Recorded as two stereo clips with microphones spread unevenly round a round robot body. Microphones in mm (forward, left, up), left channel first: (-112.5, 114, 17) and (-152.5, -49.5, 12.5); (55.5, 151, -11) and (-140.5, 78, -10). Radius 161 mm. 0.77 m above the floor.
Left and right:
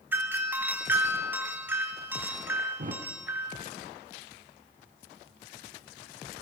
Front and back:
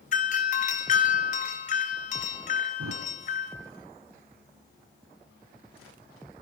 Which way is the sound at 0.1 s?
30° right.